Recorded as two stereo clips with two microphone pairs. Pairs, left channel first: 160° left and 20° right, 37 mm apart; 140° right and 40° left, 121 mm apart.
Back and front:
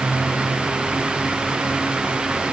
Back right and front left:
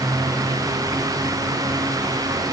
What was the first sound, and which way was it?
Only background noise.